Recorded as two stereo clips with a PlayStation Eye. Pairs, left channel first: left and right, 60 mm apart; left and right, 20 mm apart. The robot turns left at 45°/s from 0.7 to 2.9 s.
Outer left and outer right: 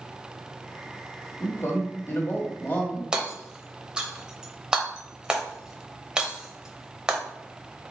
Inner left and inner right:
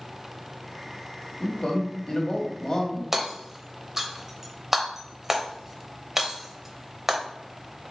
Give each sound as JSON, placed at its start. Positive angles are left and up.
{"t": 1.4, "sound": "a man speaking", "azimuth_deg": 105, "distance_m": 1.4}
{"t": 3.1, "sound": "hammering", "side_deg": -15, "distance_m": 0.7}